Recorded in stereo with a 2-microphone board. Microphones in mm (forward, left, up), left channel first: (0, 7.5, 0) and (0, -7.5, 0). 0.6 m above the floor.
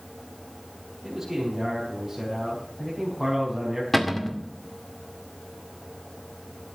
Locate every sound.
1.0 s a man speaking: 5° right (ahead or behind), 5 m
3.9 s a cupboard door: 10° left (ahead or behind), 2.0 m